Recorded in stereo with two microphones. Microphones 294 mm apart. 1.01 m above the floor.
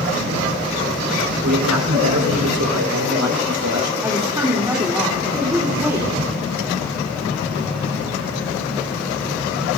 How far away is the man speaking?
About 4.5 m.